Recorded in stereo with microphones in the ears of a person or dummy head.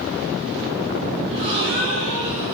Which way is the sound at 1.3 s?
85° right.